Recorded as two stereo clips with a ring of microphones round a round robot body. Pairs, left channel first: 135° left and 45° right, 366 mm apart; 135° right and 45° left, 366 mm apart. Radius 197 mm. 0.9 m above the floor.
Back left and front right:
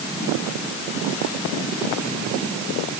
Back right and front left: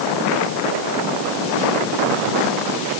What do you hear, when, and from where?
Only background noise.